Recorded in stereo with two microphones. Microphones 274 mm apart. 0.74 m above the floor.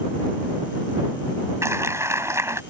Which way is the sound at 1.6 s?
10° right (ahead or behind).